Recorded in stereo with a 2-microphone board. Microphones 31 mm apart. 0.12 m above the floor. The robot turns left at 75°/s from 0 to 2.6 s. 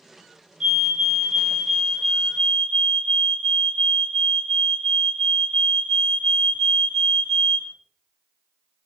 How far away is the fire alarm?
About 2 m.